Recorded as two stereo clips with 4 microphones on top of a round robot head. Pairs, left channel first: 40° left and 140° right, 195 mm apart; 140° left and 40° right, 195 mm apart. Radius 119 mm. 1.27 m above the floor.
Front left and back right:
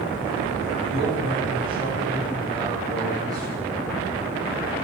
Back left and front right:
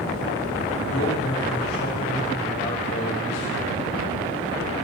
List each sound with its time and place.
0.8 s a man speaking: 155° left, 8.5 m; by 3.8 s 145° left, 8.5 m